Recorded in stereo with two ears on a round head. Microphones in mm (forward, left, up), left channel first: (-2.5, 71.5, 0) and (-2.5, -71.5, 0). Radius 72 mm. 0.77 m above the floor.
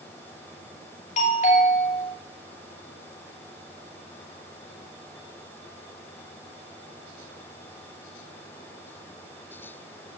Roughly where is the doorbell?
Left.